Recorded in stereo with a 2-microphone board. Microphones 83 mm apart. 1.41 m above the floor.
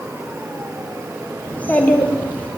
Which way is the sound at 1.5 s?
20° left (ahead or behind).